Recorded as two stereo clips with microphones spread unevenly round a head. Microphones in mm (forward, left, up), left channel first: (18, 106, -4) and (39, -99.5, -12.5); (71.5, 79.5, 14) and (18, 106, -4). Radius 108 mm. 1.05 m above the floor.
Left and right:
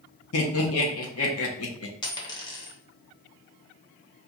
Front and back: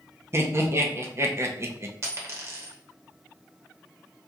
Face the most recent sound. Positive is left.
turn(degrees=140)